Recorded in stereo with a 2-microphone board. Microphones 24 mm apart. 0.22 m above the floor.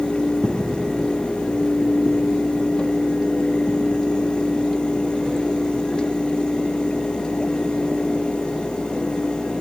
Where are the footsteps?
30° right (ahead or behind); by 9.4 s 55° right (ahead or behind).